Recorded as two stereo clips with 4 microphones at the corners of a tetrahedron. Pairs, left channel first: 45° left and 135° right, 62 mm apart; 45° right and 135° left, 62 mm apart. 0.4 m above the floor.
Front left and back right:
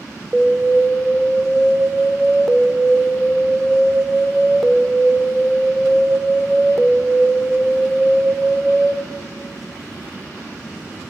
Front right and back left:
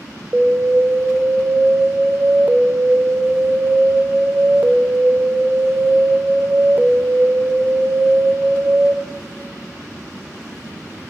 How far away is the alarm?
About 0.6 m.